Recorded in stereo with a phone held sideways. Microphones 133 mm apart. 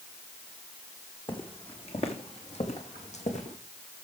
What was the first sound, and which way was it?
Footsteps, 40° left (ahead or behind).